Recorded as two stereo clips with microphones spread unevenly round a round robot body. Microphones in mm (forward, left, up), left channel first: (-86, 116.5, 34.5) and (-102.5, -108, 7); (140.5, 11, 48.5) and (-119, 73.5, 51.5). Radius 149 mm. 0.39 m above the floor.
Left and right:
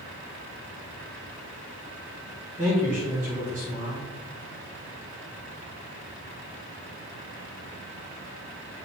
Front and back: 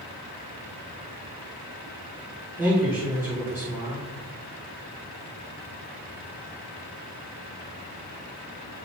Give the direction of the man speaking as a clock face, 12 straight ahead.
4 o'clock.